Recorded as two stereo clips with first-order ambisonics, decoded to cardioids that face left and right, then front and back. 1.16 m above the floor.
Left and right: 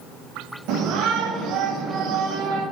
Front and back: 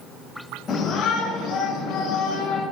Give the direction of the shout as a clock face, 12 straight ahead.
2 o'clock.